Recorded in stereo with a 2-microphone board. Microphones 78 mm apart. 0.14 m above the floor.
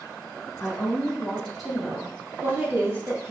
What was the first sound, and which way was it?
A woman speaking, 25° left (ahead or behind).